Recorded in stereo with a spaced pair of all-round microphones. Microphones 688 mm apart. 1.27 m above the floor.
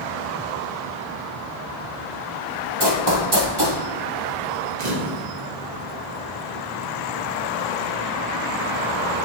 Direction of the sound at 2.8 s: 35° right (ahead or behind).